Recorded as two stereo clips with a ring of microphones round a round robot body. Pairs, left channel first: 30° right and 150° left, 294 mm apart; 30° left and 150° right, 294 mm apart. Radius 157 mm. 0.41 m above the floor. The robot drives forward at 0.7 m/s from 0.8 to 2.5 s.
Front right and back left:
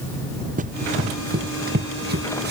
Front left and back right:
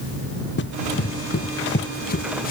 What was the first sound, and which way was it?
Running footsteps, 85° left.